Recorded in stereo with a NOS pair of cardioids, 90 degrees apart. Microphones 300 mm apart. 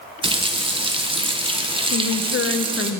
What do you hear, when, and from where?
0.2 s a running tap: 20° right, 1.1 m
1.9 s a woman speaking: 40° left, 0.8 m